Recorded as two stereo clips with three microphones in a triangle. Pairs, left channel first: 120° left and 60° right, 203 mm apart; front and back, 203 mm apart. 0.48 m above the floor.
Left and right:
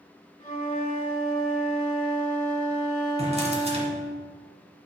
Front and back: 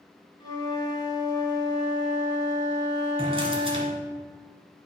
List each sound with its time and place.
0.4 s a flute: 70° left, 1.1 m
3.2 s a drawer: 115° right, 1.6 m